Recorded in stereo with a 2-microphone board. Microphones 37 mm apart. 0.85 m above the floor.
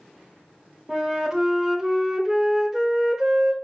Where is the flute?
10° right (ahead or behind), 0.6 m.